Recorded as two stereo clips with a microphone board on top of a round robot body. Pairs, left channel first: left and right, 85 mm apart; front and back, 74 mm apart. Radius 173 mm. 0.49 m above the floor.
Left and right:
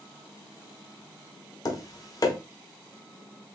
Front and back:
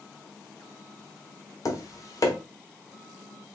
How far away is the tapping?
About 0.8 m.